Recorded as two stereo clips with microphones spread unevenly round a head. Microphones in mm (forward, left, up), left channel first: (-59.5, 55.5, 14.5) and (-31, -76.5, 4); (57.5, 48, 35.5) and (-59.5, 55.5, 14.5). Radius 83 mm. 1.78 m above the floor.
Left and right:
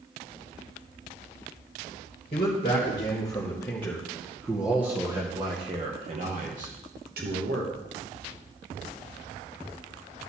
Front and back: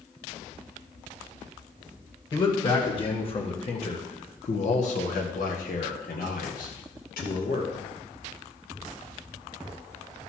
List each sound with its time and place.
2.3 s a man speaking: 45° left, 2 m; by 7.7 s 45° right, 2 m